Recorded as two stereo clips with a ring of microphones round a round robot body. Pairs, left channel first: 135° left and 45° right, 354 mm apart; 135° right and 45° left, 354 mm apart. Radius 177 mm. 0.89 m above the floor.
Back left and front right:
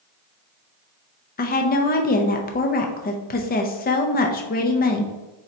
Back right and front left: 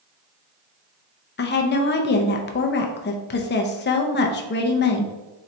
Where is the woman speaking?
175° right, 0.5 m.